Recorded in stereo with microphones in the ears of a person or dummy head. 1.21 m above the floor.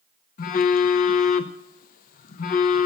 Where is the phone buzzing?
40° left (ahead or behind), 0.6 m.